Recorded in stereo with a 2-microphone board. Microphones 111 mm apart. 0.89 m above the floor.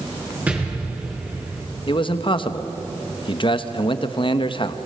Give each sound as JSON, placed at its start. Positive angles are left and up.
{"t": 0.5, "sound": "an explosion", "side_deg": -15, "distance_m": 5.0}
{"t": 1.9, "sound": "a man speaking", "side_deg": 50, "distance_m": 1.0}